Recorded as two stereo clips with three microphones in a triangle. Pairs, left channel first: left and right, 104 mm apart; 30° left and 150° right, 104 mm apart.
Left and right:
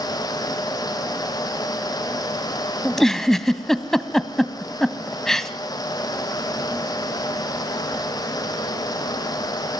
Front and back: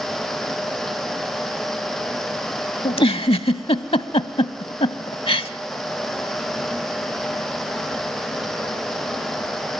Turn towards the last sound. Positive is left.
turn(degrees=5)